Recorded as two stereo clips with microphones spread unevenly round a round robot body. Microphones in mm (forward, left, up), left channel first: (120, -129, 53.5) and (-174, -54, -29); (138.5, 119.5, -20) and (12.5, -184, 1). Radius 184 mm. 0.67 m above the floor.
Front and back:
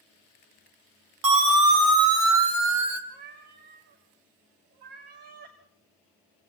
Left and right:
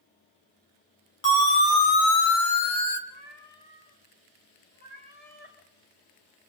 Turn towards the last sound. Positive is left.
turn(degrees=135)